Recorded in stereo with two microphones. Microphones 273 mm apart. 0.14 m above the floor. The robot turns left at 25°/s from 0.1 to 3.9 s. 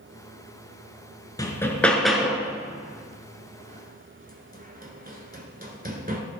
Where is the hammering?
15° left (ahead or behind), 1.1 m; by 6.2 s 35° right (ahead or behind), 1.1 m.